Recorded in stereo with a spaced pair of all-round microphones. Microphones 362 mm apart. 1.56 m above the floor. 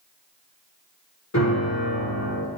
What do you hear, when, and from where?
1.3 s a piano: 45° left (ahead or behind), 1.6 m